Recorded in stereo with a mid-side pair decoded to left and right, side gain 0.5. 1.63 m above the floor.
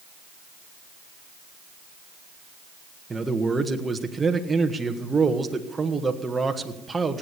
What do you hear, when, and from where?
3.1 s a man speaking: 20° right, 1.5 m